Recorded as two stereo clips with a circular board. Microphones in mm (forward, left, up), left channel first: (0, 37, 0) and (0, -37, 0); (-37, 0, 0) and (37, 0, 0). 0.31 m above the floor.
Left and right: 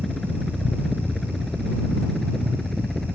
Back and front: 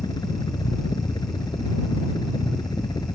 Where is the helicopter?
175° left.